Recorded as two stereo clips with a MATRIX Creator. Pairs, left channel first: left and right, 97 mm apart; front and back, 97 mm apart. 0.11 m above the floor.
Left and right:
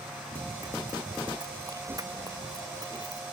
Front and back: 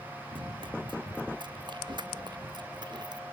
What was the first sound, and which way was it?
Running footsteps, 145° right.